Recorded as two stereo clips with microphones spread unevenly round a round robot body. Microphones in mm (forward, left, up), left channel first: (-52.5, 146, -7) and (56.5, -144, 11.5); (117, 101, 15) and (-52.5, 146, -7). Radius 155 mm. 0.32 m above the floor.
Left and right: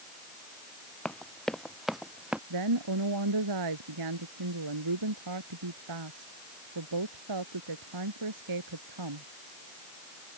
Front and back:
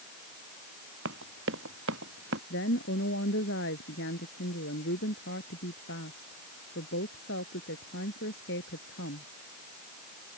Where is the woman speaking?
50° right.